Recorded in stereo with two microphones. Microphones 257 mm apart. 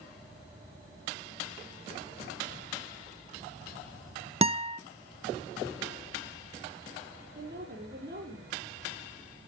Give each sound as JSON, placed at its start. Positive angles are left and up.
{"t": 4.4, "sound": "a guitar", "side_deg": -25, "distance_m": 0.5}
{"t": 7.3, "sound": "a woman speaking", "side_deg": -40, "distance_m": 6.0}